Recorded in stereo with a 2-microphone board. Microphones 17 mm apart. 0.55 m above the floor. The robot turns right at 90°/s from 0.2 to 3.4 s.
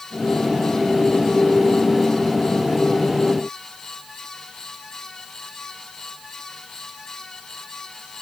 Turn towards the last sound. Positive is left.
No sound to turn to.